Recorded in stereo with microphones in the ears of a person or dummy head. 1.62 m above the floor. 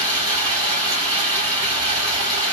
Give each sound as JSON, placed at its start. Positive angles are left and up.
{"t": 0.0, "sound": "running water", "side_deg": -20, "distance_m": 3.0}